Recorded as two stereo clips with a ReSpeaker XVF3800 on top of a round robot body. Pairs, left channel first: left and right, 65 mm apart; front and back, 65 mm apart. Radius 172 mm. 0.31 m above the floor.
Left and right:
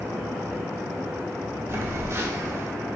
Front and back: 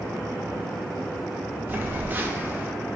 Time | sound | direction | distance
1.7 | a phone buzzing | 125° right | 0.7 m